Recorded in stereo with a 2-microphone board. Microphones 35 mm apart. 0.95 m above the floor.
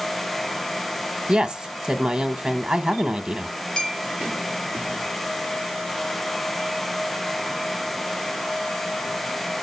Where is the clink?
20° left (ahead or behind), 1.9 m.